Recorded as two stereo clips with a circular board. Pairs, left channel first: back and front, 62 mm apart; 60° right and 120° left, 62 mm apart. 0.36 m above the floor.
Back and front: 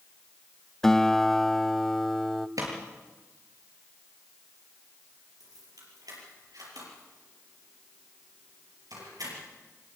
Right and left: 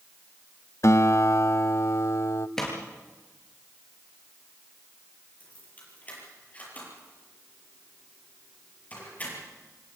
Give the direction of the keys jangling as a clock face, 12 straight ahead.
12 o'clock.